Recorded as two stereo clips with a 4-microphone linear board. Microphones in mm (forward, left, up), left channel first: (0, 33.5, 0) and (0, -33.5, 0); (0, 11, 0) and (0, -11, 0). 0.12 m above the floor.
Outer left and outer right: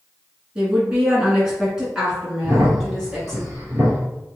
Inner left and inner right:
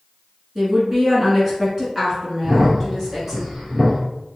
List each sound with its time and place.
0.6 s a woman speaking: 15° right (ahead or behind), 1.3 m; by 3.4 s 5° right (ahead or behind), 1.8 m
2.4 s a crack: 30° right (ahead or behind), 1.9 m